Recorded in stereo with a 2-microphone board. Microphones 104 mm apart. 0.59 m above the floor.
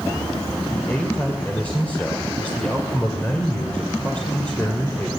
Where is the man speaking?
15° left (ahead or behind), 2.5 m.